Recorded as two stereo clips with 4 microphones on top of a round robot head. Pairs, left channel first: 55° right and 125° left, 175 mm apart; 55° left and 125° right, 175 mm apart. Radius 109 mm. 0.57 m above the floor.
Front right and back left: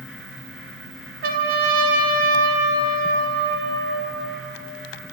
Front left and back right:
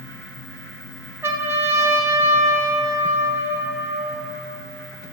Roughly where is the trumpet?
Behind.